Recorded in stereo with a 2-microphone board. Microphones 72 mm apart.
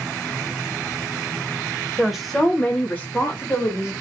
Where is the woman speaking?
5° right (ahead or behind), 0.9 m; by 3.9 s 35° left (ahead or behind), 1.5 m.